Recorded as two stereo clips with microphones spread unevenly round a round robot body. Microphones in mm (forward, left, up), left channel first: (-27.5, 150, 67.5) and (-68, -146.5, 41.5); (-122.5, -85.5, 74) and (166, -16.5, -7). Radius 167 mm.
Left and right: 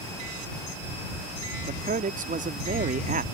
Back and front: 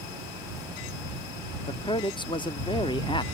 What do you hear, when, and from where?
1.6 s a man speaking: 80° right